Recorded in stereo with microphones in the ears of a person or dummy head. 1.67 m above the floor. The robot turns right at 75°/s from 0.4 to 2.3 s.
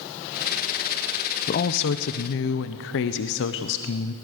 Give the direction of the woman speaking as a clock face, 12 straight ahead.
10 o'clock.